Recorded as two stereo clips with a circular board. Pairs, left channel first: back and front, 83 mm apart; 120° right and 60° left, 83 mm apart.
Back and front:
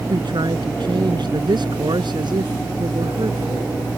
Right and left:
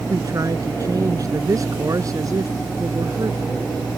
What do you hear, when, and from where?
0.1 s a man speaking: 15° left